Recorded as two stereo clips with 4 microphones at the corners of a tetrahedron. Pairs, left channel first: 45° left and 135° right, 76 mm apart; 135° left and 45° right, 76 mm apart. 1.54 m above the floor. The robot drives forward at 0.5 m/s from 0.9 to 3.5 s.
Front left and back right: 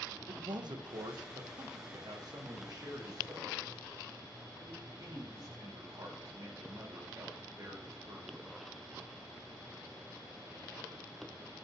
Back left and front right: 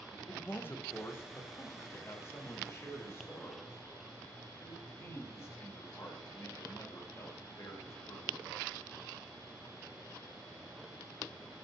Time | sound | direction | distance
0.3 | a man speaking | 160° right | 0.9 m